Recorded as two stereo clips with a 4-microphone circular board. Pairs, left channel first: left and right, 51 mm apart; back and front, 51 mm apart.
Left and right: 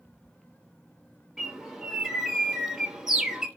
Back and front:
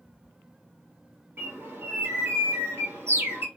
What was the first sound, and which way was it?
A bird, 10° right.